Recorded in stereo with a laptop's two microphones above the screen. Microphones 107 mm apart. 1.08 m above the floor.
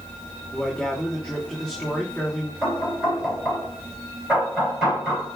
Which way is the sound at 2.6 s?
Centre (ahead or behind).